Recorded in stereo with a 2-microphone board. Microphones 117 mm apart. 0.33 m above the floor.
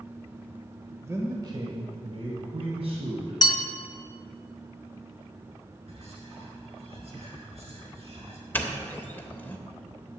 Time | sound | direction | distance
1.0 | a man speaking | 25° right (ahead or behind) | 1.3 m
3.4 | a bell | 35° left (ahead or behind) | 1.1 m
5.9 | whispering | 60° right (ahead or behind) | 4.5 m
8.5 | a doorbell | 15° left (ahead or behind) | 1.3 m